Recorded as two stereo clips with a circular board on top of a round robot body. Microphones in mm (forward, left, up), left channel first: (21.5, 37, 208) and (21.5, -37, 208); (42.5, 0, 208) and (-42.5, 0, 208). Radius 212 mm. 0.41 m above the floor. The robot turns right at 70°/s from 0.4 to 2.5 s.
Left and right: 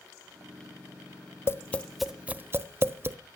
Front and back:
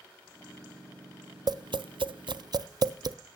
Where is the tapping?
145° left, 0.5 m; by 3.2 s 145° right, 0.5 m.